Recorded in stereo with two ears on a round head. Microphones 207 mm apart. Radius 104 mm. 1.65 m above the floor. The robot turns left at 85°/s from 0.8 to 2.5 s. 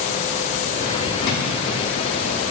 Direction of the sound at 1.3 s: 50° left (ahead or behind).